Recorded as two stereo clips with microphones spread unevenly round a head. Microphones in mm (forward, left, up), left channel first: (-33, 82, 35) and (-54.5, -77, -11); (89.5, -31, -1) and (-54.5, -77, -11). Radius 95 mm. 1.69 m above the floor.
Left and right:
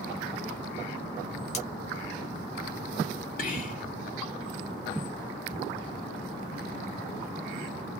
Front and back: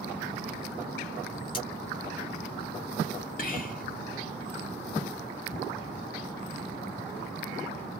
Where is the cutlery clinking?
70° left, 1.4 m.